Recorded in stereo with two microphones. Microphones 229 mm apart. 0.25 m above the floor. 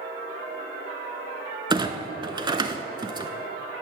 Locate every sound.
1.7 s a clunk: 20° right (ahead or behind), 0.5 m